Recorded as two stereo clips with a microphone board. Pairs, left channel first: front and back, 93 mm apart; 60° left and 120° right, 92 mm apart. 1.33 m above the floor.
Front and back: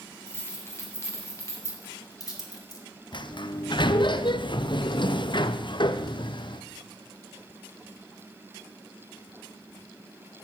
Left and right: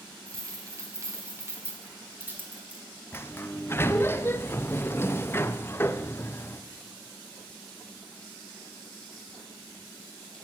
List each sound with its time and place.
0.3 s keys jangling: 65° right, 3 m; by 2.8 s 45° right, 2 m
3.1 s a sliding door: straight ahead, 0.6 m